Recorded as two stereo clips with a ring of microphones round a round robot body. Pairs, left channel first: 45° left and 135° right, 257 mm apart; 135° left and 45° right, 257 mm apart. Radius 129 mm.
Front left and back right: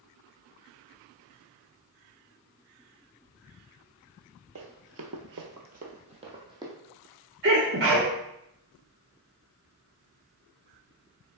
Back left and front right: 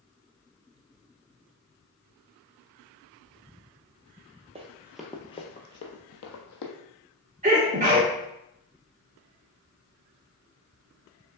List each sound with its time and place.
4.5 s running footsteps: 110° right, 0.9 m; by 6.7 s 150° left, 1.3 m
7.4 s a sneeze: 100° right, 0.9 m